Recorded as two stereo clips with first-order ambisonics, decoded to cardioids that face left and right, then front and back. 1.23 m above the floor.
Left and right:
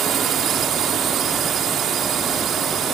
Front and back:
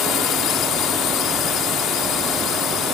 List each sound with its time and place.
0.0 s a drone: 40° right